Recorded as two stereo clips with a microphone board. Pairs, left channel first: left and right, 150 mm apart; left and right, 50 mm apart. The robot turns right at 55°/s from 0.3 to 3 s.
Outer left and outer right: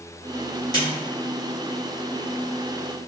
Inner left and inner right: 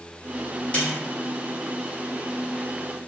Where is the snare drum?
25° left (ahead or behind), 1.7 m; by 0.9 s 35° left (ahead or behind), 1.7 m.